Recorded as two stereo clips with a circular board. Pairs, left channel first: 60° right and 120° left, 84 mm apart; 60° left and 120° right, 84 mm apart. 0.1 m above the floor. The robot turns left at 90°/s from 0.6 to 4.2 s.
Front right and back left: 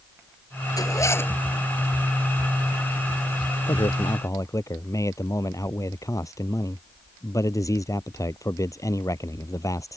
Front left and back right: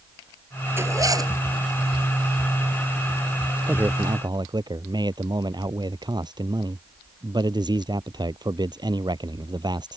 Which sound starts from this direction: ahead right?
A man speaking, at 3.7 s.